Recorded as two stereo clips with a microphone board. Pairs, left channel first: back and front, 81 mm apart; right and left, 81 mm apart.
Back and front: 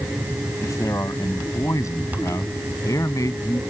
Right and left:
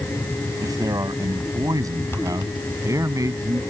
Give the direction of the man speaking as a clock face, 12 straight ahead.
8 o'clock.